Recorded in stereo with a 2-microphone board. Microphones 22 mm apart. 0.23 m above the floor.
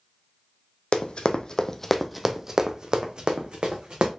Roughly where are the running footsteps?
Left.